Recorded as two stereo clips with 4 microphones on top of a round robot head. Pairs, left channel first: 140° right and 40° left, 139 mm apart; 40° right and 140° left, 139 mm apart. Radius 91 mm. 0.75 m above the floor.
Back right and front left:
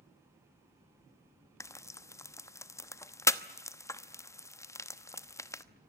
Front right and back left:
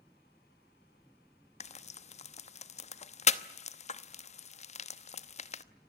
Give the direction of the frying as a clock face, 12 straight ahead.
2 o'clock.